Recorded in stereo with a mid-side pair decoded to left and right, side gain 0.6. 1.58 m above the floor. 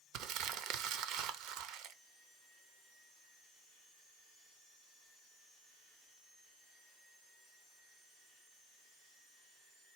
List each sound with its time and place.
0.1 s crumpling: 70° right, 0.7 m